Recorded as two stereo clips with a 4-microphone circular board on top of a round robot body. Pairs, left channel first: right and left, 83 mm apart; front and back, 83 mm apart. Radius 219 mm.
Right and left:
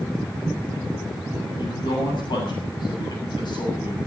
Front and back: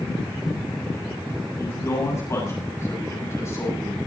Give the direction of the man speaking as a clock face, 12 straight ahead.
2 o'clock.